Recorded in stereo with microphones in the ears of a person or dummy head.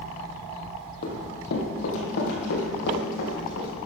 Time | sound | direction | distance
1.0 | running footsteps | 60° left (ahead or behind) | 3 m